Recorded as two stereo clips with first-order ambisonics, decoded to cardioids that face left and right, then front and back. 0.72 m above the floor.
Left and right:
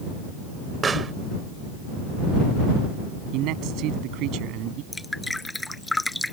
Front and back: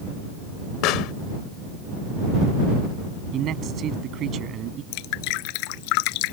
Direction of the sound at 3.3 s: 125° right.